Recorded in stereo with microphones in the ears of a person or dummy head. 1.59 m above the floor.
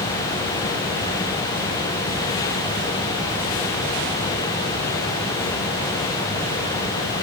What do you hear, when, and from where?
Only background noise.